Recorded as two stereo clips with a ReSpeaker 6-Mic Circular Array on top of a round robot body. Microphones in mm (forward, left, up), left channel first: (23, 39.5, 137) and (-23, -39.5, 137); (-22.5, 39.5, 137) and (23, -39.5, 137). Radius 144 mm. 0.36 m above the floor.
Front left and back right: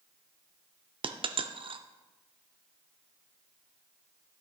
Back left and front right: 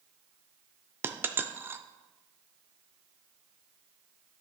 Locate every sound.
1.0 s a dropped coin: 125° right, 0.6 m